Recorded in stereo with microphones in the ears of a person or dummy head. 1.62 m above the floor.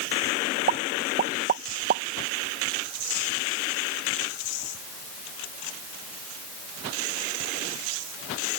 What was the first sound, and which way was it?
A pop, 45° right (ahead or behind).